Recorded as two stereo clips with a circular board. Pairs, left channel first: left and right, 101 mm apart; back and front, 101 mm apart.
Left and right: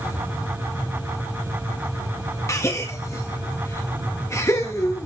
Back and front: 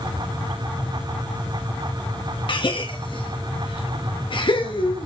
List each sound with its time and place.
2.5 s a gasp: 150° left, 1.5 m